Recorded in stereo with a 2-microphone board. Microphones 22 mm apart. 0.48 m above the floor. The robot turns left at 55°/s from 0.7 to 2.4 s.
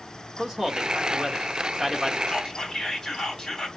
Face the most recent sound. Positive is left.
turn(degrees=25)  # may be behind; listen again after turning